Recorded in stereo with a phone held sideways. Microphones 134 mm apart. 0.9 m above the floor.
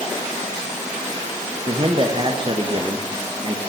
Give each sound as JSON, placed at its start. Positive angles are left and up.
{"t": 1.7, "sound": "a man speaking", "side_deg": -35, "distance_m": 1.2}